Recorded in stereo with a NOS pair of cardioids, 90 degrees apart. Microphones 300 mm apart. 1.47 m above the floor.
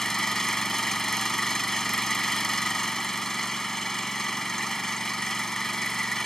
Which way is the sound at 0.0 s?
Straight ahead.